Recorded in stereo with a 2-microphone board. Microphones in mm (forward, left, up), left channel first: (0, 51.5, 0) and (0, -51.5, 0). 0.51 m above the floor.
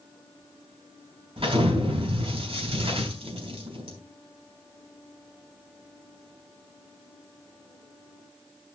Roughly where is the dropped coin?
I don't hear a dropped coin.